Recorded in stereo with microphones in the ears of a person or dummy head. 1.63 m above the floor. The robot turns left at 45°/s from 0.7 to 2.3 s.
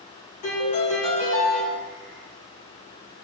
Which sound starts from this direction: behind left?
A piano, at 0.4 s.